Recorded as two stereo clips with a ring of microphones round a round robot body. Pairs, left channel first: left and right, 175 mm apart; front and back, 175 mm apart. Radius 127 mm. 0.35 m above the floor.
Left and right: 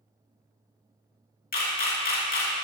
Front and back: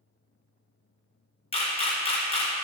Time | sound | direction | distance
1.5 | a camera shutter | 55° left | 2 m